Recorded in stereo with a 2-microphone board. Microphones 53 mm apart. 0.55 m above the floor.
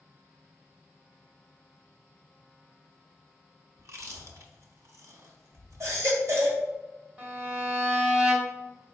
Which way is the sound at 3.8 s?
70° right (ahead or behind).